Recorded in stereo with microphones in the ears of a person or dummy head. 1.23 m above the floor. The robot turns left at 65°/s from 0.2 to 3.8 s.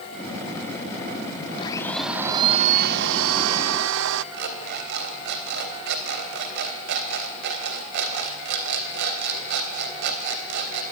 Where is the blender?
30° left, 0.8 m; by 4.2 s 115° right, 0.8 m.